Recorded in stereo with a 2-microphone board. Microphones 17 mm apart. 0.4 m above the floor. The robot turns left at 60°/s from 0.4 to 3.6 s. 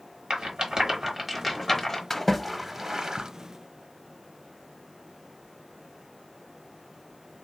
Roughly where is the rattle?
Right.